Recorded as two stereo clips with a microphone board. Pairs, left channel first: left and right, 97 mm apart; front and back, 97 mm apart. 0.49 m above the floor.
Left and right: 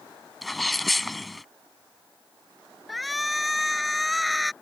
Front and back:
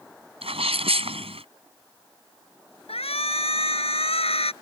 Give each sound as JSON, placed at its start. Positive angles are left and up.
{"t": 0.4, "sound": "a sneeze", "azimuth_deg": 180}
{"t": 2.9, "sound": "a shout", "azimuth_deg": 0}